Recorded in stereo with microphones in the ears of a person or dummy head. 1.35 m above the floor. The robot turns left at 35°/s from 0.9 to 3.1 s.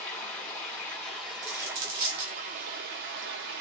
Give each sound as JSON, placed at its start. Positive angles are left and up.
{"t": 0.0, "sound": "running water", "azimuth_deg": 15, "distance_m": 0.9}
{"t": 1.4, "sound": "a dropped coin", "side_deg": -35, "distance_m": 1.1}